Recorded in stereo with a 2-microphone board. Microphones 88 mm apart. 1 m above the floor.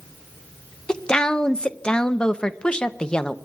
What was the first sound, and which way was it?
A woman speaking, 10° left (ahead or behind).